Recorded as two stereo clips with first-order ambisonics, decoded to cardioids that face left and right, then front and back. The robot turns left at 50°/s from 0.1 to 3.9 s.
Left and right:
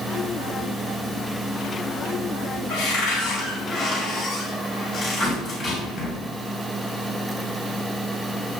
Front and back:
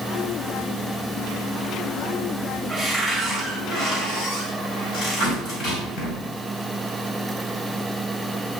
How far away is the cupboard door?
About 2.5 m.